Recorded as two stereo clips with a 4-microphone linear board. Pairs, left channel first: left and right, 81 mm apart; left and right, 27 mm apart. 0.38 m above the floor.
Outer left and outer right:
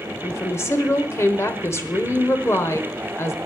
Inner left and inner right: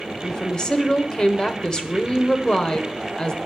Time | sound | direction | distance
0.2 | a woman speaking | 35° left (ahead or behind) | 1.2 m